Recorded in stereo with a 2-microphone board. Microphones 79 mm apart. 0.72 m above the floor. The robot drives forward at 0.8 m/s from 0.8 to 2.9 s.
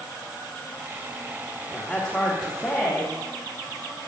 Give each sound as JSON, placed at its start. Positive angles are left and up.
{"t": 1.7, "sound": "a woman speaking", "side_deg": 10, "distance_m": 1.6}